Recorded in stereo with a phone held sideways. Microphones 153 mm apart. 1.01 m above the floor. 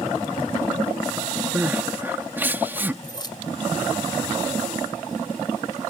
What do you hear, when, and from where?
1.6 s crying: 15° right (ahead or behind)
3.0 s keys jangling: 30° left (ahead or behind)